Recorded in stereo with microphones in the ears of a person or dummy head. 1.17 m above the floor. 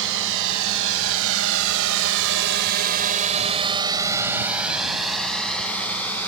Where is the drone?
65° right (ahead or behind); by 6.3 s 10° left (ahead or behind).